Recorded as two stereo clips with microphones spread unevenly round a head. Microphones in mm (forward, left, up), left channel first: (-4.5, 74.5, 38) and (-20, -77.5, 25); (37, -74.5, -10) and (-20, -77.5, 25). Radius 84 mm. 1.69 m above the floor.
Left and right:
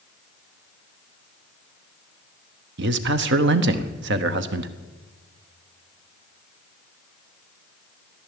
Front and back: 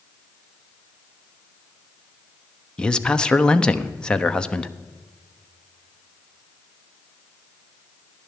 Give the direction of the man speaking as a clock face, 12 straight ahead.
3 o'clock.